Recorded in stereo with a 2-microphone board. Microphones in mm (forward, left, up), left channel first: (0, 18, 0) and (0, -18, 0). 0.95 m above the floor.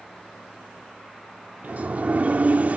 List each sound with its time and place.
1.6 s a sliding door: 45° right (ahead or behind), 0.6 m